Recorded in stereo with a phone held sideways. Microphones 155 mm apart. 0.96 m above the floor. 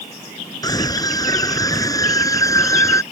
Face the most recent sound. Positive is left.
turn(degrees=20)  # may be behind; listen again after turning